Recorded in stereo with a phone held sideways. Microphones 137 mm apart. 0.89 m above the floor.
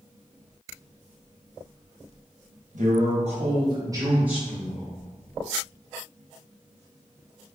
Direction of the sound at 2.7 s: 65° right (ahead or behind).